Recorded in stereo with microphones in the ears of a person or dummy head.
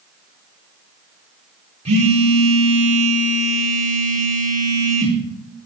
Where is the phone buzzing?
30° right (ahead or behind), 1.1 m.